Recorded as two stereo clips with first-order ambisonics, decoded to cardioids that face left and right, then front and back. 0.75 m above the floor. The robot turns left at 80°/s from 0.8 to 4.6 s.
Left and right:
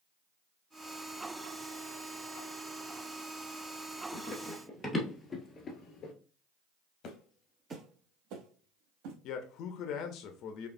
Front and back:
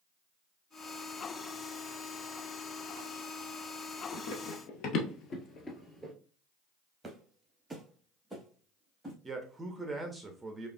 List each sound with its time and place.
4.1 s running footsteps: 30° left, 1.3 m; by 6.1 s 95° left, 0.8 m
7.0 s footsteps: 105° left, 0.9 m; by 9.1 s 90° right, 2.5 m
9.2 s a man speaking: 105° left, 0.6 m